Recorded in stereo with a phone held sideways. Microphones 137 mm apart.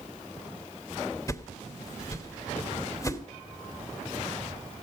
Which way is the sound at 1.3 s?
25° left (ahead or behind).